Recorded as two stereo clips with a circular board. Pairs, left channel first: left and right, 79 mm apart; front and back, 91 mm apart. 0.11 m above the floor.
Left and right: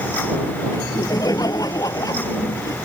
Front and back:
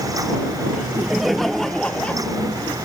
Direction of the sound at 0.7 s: 100° left.